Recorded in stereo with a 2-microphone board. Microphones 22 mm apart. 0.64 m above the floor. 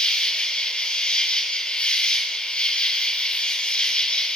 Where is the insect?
65° left (ahead or behind), 3.5 m.